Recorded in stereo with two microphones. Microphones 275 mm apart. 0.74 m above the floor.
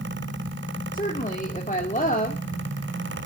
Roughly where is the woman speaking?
Left.